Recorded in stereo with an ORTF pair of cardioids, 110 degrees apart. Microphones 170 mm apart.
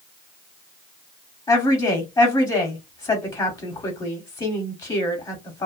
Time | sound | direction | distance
1.5 | a woman speaking | 25° left | 1.2 m